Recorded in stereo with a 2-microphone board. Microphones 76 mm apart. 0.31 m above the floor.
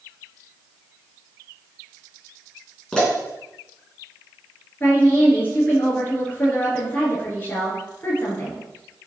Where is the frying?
No frying in this recording.